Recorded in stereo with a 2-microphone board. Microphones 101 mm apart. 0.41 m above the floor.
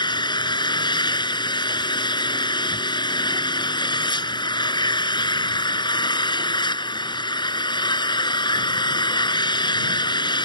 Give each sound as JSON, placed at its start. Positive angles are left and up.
{"t": 0.0, "sound": "an engine running", "side_deg": 50}